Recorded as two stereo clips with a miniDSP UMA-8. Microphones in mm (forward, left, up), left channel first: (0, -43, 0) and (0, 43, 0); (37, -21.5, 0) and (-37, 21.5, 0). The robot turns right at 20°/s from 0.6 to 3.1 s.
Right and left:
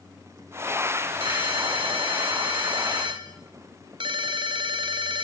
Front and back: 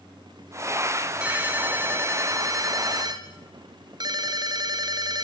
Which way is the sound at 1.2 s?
70° left.